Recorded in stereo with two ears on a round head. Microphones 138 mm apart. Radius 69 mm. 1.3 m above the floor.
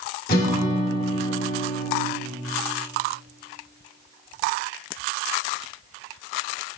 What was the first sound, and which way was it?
A guitar, 65° left (ahead or behind).